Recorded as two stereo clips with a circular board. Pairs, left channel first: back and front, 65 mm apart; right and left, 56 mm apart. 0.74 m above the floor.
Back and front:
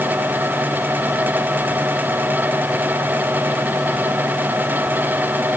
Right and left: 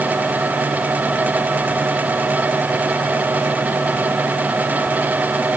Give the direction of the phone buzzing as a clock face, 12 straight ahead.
No phone buzzing in this recording.